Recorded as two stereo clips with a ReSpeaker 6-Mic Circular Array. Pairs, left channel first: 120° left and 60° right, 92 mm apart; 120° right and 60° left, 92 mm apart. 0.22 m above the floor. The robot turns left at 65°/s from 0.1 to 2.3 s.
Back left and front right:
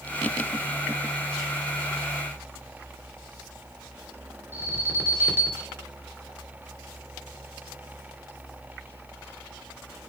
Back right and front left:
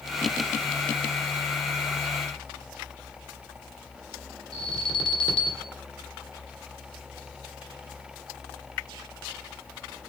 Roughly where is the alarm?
Behind right.